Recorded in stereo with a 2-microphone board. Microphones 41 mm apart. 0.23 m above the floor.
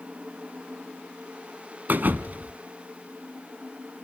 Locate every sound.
1.9 s a thud: 50° right (ahead or behind), 1.1 m